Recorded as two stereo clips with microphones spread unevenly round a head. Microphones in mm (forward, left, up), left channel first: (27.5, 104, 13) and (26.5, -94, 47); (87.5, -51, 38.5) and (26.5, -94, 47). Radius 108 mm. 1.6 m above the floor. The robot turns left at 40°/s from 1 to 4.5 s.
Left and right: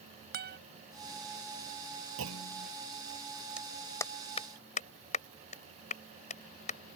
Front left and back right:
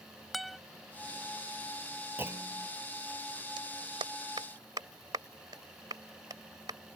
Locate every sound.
0.3 s a guitar: 55° right
2.2 s a clunk: 85° right; by 2.7 s 105° right
3.6 s a clap: 175° right; by 6.8 s 150° left